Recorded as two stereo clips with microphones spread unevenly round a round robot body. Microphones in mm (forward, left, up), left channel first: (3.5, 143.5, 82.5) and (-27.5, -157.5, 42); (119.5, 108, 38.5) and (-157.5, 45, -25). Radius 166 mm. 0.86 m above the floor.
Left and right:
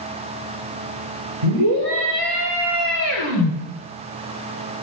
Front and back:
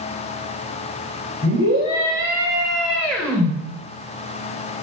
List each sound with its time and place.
1.4 s a scream: 110° right, 4 m; by 3.5 s 75° right, 4 m